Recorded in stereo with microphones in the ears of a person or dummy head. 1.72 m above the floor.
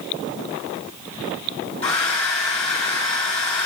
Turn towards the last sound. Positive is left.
turn(degrees=30)  # may be behind; listen again after turning